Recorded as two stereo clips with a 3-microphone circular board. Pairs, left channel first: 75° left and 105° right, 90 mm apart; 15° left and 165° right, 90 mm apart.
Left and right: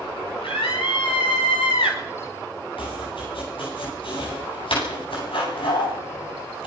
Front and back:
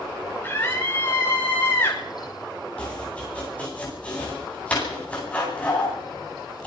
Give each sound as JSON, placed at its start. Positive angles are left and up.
{"t": 0.4, "sound": "a scream", "azimuth_deg": 80, "distance_m": 6.5}
{"t": 2.8, "sound": "chopping", "azimuth_deg": 90, "distance_m": 10.0}